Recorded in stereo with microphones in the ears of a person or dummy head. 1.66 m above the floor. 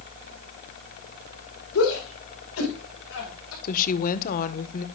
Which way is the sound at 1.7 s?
85° left.